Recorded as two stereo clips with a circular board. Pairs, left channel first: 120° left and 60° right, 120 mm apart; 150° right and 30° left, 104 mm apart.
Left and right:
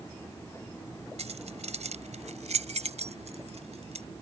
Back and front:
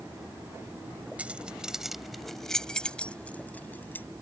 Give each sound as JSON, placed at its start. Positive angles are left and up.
{"t": 1.2, "sound": "keys jangling", "azimuth_deg": -45}